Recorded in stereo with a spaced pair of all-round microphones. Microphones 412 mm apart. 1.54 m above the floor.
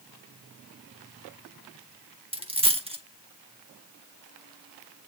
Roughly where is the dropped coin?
Centre.